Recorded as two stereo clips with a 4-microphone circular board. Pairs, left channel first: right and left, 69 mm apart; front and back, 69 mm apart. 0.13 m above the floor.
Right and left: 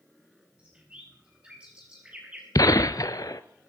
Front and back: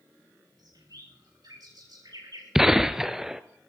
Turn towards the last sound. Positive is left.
turn(degrees=-95)